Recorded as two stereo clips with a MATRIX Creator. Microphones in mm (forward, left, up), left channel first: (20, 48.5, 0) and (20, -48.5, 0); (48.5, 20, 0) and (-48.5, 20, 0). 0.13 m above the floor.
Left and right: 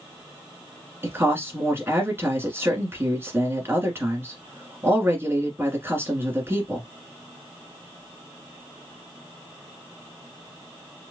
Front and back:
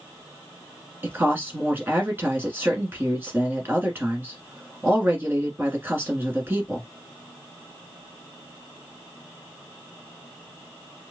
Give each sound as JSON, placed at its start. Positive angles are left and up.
{"t": 1.0, "sound": "a woman speaking", "azimuth_deg": -135, "distance_m": 1.7}